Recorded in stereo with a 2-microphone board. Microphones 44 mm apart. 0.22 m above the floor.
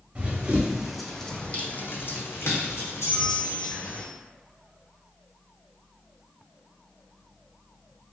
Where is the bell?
20° right (ahead or behind), 0.7 m.